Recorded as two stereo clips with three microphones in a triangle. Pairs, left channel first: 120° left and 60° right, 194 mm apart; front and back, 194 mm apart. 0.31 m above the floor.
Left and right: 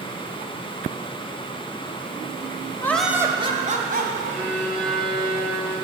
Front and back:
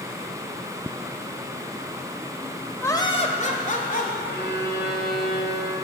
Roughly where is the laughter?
Ahead left.